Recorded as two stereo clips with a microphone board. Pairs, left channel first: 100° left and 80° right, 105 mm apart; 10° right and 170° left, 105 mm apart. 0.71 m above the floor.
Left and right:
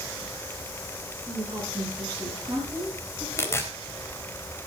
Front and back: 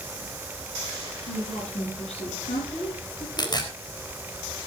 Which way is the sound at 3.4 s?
35° left.